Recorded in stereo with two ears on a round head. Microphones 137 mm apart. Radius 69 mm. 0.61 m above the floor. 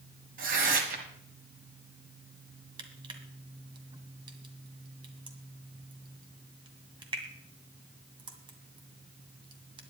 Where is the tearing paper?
55° right (ahead or behind), 2.0 m.